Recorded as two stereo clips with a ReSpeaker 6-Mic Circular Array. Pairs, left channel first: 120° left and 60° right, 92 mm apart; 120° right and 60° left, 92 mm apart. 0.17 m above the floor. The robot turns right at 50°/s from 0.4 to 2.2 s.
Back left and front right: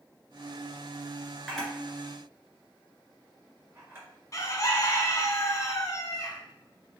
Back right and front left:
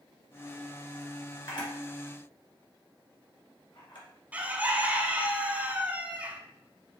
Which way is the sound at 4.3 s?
125° left.